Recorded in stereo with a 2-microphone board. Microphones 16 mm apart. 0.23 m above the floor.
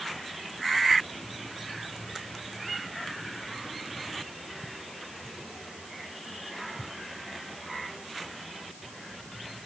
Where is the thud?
No thud in this recording.